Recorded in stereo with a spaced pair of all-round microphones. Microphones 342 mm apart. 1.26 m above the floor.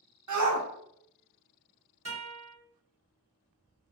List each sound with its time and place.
0.3 s a shout: 60° right (ahead or behind), 0.5 m
2.0 s a guitar: 45° right (ahead or behind), 1.4 m